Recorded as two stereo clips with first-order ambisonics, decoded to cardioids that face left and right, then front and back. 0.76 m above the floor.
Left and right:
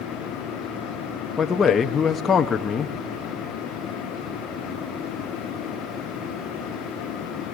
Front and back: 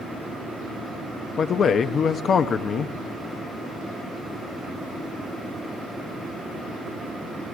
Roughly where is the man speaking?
Ahead left.